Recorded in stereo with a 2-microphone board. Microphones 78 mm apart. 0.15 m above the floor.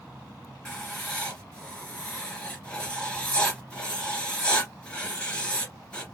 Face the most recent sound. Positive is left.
turn(degrees=15)  # may be behind; listen again after turning